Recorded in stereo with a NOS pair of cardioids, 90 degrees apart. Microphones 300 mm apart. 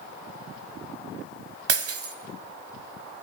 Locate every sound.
1.7 s breaking glass: 55° right, 3.5 m